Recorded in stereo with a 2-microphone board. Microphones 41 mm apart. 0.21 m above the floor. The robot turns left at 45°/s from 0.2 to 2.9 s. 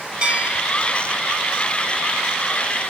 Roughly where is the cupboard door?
I don't hear a cupboard door.